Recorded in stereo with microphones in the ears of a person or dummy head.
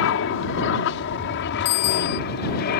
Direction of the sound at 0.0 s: 70° left (ahead or behind).